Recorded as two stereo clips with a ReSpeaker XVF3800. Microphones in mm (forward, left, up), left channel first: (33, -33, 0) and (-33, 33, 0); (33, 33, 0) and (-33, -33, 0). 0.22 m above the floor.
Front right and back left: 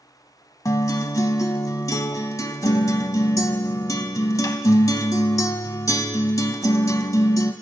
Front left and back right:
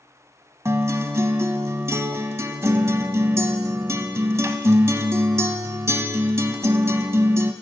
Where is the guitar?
85° right, 0.5 m.